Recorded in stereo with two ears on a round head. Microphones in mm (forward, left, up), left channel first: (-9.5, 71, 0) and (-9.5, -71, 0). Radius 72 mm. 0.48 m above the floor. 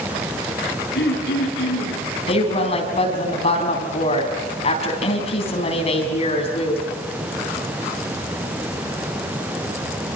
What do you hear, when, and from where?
0.9 s throat clearing: 70° left (ahead or behind), 8.5 m
2.3 s a woman speaking: 40° left (ahead or behind), 4.5 m